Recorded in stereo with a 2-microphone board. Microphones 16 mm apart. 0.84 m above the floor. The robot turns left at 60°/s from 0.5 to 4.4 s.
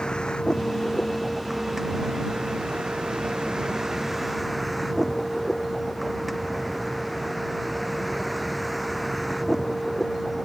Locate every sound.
0.0 s a vehicle: 55° left; by 10.4 s straight behind